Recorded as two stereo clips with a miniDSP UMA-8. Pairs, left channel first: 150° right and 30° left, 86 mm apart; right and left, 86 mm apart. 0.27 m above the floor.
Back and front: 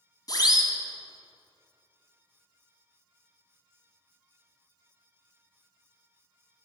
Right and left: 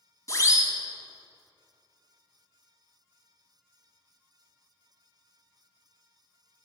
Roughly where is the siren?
Behind right.